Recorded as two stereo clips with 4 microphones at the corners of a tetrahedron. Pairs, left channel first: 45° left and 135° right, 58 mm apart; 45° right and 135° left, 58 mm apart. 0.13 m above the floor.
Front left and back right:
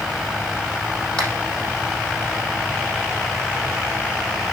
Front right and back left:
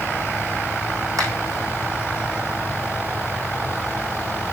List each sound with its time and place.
1.2 s a finger snap: 120° left, 5.5 m